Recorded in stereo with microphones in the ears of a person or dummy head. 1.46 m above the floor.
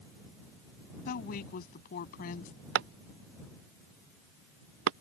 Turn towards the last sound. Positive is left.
turn(degrees=-60)  # may be behind; listen again after turning